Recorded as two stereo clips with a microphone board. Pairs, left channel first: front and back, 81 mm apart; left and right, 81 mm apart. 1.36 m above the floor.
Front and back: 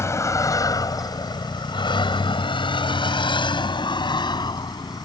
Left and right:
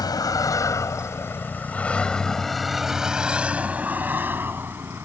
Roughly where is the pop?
No pop in this recording.